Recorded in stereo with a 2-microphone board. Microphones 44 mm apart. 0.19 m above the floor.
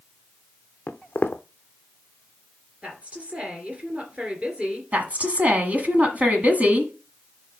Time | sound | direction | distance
0.9 | footsteps | 45° left (ahead or behind) | 0.6 m
2.8 | a woman speaking | 30° right (ahead or behind) | 2.5 m
4.9 | a woman speaking | 35° right (ahead or behind) | 1.4 m